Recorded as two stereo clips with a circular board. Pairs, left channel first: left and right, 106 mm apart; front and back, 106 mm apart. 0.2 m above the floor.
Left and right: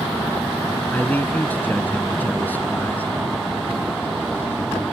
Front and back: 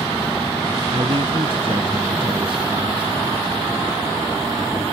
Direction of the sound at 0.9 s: 160° left.